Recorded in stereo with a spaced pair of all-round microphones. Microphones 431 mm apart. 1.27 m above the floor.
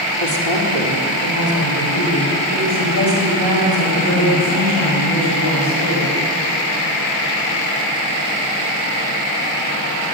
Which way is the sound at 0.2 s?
80° left.